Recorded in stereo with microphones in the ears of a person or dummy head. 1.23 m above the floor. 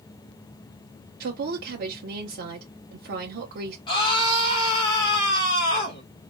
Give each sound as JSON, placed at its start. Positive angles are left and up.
{"t": 1.2, "sound": "a woman speaking", "side_deg": -55, "distance_m": 0.8}
{"t": 3.9, "sound": "a scream", "side_deg": 25, "distance_m": 1.5}